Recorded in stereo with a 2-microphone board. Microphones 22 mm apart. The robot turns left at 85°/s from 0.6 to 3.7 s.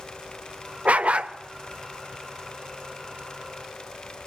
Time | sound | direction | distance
0.8 | a dog barking | 85° right | 0.9 m